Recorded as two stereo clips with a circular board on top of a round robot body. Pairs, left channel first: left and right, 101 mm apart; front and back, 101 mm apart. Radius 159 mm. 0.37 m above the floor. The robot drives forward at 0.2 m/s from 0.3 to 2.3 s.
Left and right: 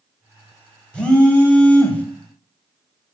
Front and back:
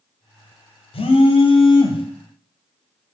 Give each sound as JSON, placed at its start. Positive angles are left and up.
{"t": 0.9, "sound": "a phone buzzing", "azimuth_deg": 10, "distance_m": 0.8}